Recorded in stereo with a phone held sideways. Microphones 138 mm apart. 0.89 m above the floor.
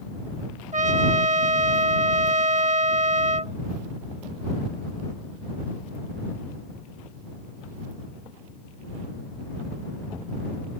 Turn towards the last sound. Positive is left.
turn(degrees=-60)  # may be behind; listen again after turning